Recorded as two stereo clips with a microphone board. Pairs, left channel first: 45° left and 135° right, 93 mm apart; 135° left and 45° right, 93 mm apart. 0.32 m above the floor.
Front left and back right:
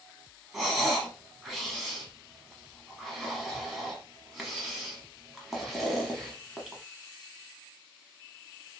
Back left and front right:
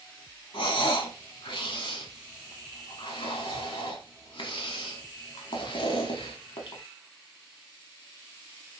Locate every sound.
0.5 s breathing: 140° left, 0.9 m